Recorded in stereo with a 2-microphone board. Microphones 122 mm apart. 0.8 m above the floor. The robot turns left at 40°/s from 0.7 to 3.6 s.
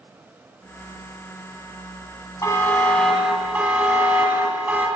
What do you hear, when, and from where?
2.4 s a buzzer: 30° left, 1.3 m; by 4.9 s 15° right, 1.3 m